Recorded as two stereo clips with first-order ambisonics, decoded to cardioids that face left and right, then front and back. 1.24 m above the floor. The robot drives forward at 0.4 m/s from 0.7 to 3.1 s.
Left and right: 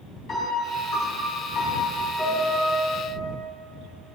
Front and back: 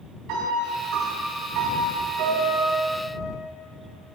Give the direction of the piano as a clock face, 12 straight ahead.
7 o'clock.